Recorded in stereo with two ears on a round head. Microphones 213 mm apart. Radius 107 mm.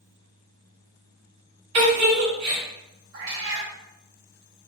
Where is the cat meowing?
60° right (ahead or behind), 0.8 m.